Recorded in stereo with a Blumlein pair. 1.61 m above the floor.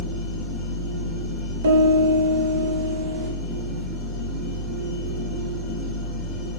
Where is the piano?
65° right, 0.7 m.